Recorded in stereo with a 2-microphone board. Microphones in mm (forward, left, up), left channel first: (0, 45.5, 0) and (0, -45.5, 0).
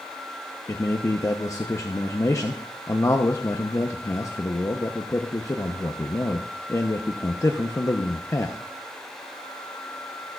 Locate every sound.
0.7 s a man speaking: 35° left (ahead or behind), 0.7 m